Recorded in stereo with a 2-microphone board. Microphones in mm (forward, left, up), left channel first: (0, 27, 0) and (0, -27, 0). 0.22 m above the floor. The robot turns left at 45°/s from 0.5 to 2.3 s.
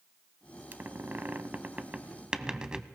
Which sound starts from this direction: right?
A squeak, at 0.7 s.